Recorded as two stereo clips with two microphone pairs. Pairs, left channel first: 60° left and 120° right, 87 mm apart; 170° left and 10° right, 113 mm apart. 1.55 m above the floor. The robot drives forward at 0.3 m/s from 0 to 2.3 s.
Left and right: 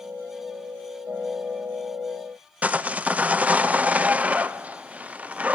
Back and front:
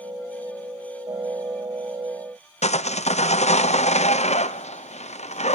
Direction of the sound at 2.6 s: 160° left.